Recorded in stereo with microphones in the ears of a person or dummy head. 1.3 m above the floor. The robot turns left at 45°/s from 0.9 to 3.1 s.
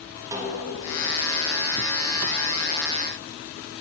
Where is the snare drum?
15° right (ahead or behind), 1.8 m.